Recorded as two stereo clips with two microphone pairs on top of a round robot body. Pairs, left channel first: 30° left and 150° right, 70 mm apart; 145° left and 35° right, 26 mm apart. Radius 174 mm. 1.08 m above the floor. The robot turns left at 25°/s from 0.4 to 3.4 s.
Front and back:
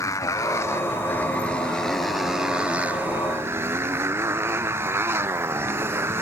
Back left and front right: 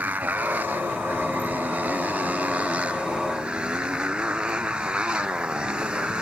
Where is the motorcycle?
15° right; by 6.2 s 90° right.